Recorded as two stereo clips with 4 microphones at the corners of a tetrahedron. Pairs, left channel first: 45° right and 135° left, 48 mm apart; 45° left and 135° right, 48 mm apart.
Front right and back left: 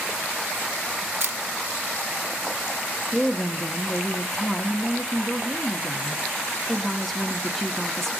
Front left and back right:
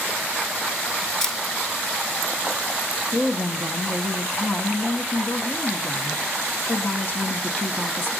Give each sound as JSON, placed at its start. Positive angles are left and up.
{"t": 1.2, "sound": "a camera shutter", "azimuth_deg": 125, "distance_m": 1.4}
{"t": 3.1, "sound": "a woman speaking", "azimuth_deg": 40, "distance_m": 1.6}